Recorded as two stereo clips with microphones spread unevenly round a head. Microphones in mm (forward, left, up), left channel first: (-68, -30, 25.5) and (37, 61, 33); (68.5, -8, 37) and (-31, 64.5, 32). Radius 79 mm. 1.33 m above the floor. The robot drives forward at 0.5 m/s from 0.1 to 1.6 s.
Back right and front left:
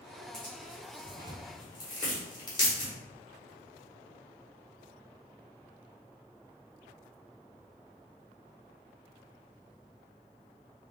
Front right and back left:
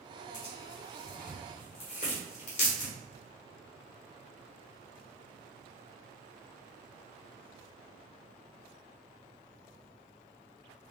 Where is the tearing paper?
55° right, 1.6 m; by 2.9 s 75° right, 1.4 m.